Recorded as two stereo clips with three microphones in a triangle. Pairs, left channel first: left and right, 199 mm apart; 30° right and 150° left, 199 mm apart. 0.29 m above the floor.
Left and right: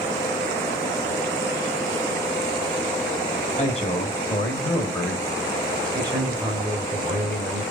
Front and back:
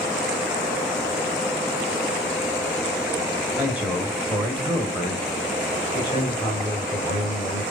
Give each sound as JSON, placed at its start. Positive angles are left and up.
{"t": 3.6, "sound": "a man speaking", "azimuth_deg": 75, "distance_m": 1.5}